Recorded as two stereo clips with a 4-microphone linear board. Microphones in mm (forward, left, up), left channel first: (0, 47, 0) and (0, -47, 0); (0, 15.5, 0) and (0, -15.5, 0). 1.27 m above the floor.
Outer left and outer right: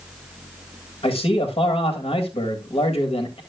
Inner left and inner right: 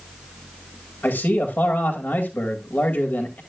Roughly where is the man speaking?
Left.